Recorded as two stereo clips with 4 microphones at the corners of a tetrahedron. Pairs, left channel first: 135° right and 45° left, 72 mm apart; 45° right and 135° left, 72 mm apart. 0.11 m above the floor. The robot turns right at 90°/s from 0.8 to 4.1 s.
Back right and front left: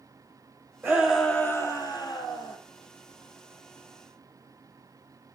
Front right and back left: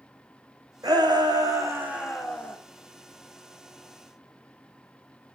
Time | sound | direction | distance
0.8 | a shout | 105° left | 4.5 m